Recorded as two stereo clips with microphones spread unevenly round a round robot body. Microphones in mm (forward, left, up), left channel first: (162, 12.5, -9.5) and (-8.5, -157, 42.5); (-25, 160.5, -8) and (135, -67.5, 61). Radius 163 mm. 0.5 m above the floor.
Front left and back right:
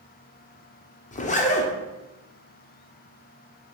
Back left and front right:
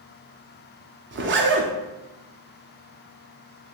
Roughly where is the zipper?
Ahead.